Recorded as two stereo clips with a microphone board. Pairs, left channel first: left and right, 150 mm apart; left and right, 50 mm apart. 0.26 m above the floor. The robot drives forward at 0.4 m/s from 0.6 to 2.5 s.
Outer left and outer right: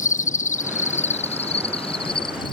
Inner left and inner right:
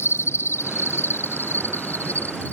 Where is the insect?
65° left (ahead or behind); by 2.5 s 35° left (ahead or behind).